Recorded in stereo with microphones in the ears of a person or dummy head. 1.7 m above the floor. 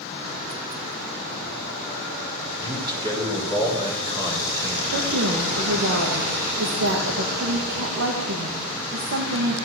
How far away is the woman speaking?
About 2 m.